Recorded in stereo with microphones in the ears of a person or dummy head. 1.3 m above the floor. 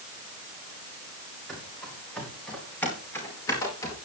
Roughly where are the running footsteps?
Centre.